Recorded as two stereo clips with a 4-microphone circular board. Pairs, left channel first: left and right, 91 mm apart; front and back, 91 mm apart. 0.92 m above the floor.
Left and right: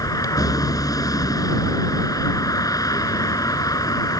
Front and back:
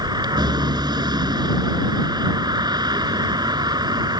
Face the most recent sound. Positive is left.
turn(degrees=140)